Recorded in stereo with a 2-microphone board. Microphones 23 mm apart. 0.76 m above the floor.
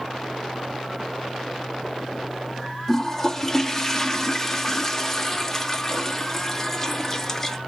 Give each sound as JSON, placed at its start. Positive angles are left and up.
{"t": 2.9, "sound": "a toilet flushing", "side_deg": 15, "distance_m": 0.8}